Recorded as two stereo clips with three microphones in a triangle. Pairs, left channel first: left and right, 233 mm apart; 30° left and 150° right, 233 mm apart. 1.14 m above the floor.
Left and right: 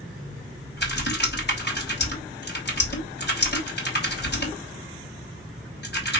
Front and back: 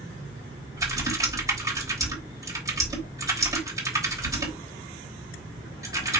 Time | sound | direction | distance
0.8 | typing on a keyboard | 135° left | 3 m